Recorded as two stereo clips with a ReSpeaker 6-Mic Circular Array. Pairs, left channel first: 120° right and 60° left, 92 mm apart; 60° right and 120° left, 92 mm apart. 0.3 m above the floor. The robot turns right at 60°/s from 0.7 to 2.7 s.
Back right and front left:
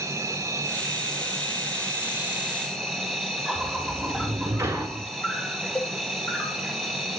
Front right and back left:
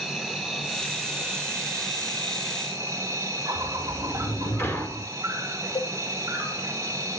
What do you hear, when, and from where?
0.0 s an insect: 35° left, 2 m; by 7.2 s 155° left, 2 m
3.5 s a sliding door: straight ahead, 1.4 m
5.8 s a cowbell: 50° right, 0.8 m